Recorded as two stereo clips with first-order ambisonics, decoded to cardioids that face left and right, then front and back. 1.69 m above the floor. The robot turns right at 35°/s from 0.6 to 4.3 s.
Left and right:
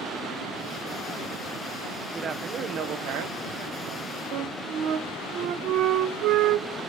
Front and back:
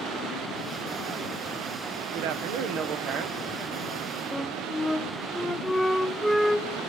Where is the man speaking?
160° right, 1.0 m; by 4.2 s 90° right, 1.0 m.